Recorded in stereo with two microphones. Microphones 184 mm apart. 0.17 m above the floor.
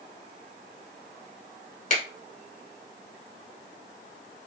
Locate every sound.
1.9 s a finger snap: 45° left (ahead or behind), 1.1 m